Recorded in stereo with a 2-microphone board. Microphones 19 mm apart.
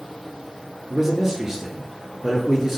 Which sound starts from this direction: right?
A man speaking, at 0.9 s.